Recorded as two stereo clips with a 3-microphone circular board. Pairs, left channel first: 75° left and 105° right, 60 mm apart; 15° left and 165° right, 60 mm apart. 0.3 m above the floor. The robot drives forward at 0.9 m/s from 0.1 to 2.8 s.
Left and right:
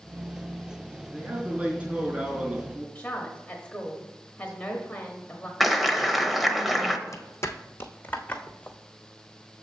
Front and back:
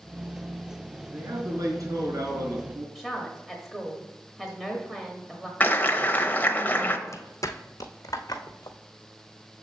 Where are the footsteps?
50° left, 0.8 m; by 8.8 s 5° left, 1.4 m.